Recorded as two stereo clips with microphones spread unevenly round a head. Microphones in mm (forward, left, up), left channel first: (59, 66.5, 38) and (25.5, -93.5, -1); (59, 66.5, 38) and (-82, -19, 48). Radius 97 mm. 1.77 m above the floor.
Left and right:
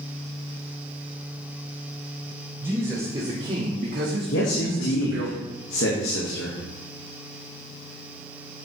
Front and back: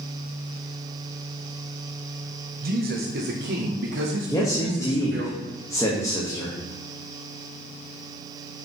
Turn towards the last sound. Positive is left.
turn(degrees=105)